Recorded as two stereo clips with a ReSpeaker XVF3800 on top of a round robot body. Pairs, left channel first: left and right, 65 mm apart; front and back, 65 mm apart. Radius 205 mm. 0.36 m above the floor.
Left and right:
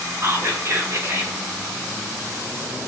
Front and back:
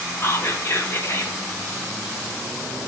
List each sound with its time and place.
0.2 s whispering: 45° right, 2.0 m